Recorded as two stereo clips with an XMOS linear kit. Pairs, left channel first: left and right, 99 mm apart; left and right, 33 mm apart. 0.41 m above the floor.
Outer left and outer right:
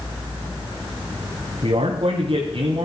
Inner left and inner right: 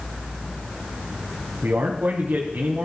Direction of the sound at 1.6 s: 65° right (ahead or behind).